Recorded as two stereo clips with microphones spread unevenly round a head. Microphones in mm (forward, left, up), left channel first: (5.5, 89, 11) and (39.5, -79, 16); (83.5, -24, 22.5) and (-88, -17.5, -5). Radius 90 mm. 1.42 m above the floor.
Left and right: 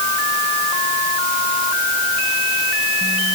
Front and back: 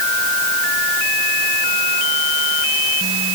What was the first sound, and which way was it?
Only background noise.